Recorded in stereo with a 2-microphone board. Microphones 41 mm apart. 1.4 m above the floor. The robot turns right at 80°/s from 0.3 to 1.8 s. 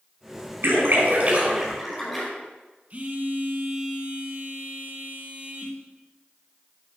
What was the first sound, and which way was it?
A splash, 80° right.